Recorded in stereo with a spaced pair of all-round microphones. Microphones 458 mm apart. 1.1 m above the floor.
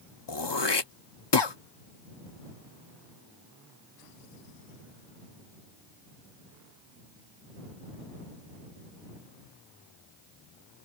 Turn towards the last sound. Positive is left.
turn(degrees=55)  # may be behind; listen again after turning